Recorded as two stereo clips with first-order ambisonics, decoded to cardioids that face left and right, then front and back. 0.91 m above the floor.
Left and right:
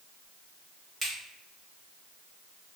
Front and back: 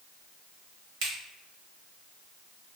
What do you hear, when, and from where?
1.0 s a finger snap: 165° right, 1.0 m